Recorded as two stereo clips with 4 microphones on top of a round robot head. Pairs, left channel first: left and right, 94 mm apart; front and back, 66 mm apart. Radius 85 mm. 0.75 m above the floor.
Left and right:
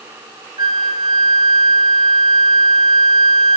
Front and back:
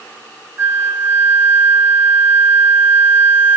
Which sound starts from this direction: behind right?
A flute, at 0.6 s.